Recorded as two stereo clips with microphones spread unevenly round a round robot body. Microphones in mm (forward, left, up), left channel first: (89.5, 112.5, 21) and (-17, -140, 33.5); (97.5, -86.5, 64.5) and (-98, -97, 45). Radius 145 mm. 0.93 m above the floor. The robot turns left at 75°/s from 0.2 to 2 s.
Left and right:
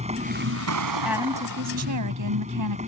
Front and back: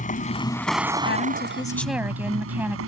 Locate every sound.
0.0 s a vehicle: 45° right; by 2.9 s straight behind
1.1 s a woman speaking: 25° right; by 2.8 s 95° right